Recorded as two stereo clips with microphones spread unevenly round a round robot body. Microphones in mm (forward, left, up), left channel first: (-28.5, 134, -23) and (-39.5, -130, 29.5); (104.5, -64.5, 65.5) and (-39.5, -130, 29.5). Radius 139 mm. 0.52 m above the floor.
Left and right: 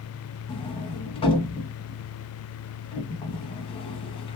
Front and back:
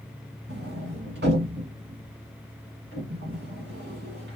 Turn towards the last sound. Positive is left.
turn(degrees=160)